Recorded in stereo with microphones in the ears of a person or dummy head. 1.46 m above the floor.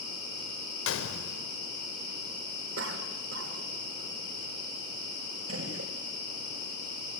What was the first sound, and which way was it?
A gunshot, 70° left (ahead or behind).